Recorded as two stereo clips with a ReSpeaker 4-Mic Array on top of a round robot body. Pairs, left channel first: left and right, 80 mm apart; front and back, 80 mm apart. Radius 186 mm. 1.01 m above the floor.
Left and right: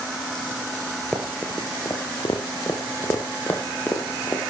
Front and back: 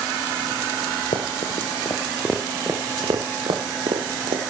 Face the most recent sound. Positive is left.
turn(degrees=160)